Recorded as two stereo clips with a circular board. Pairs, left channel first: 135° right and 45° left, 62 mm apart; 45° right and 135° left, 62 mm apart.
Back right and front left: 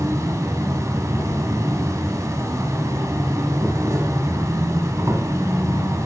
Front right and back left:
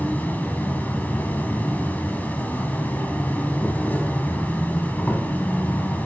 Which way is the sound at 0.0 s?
15° left.